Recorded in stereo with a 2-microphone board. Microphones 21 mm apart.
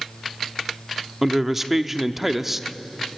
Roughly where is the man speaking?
Centre.